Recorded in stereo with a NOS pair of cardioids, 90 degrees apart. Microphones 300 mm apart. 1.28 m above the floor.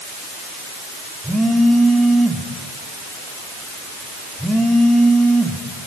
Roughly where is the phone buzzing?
Ahead.